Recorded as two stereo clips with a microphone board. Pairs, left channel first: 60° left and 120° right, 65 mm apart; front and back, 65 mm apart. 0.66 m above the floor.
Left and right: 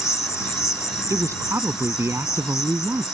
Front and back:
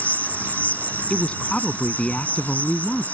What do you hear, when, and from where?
0.0 s an insect: 55° left
1.1 s a woman speaking: 75° right